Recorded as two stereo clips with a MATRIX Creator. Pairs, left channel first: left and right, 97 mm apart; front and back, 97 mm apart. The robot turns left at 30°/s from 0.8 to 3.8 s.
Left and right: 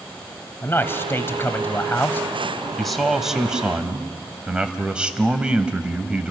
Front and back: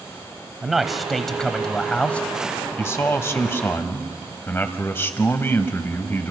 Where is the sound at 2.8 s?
5° left, 1.2 m; by 6.3 s 25° right, 1.2 m.